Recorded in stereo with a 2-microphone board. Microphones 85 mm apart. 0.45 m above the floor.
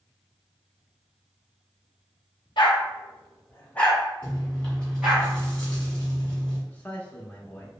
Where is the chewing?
15° left (ahead or behind), 1.6 m.